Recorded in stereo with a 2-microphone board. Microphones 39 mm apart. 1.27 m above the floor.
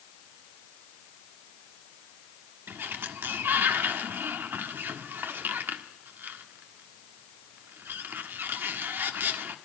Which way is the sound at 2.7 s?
70° right (ahead or behind).